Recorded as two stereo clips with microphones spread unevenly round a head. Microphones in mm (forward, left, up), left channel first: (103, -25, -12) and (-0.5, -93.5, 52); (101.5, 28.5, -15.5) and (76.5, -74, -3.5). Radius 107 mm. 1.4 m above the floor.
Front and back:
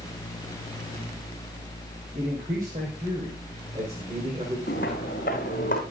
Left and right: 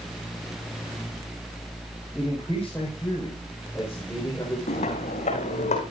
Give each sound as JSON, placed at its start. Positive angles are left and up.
{"t": 2.1, "sound": "a man speaking", "azimuth_deg": 160, "distance_m": 6.0}
{"t": 4.7, "sound": "footsteps", "azimuth_deg": 80, "distance_m": 4.5}